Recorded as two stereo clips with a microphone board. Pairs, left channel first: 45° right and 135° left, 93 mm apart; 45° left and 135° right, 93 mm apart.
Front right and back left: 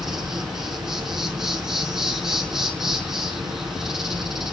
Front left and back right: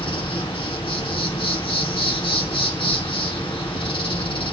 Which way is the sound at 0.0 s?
50° left.